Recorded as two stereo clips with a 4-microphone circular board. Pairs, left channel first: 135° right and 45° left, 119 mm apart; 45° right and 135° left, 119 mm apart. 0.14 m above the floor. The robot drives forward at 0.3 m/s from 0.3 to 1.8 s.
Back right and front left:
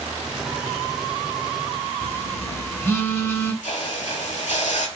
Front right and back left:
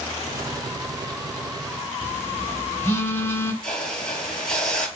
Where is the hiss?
130° right, 0.7 m.